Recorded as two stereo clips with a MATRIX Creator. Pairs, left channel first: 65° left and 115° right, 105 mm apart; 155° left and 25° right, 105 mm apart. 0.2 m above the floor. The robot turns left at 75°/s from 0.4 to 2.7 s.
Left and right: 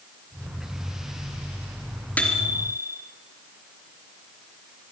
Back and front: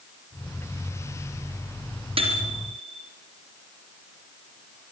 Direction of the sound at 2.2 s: 5° right.